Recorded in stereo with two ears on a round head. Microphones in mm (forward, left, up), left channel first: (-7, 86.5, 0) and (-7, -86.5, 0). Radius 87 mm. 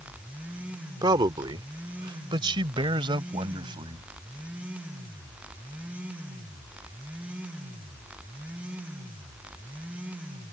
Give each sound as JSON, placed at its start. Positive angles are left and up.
{"t": 1.0, "sound": "a man speaking", "side_deg": -20}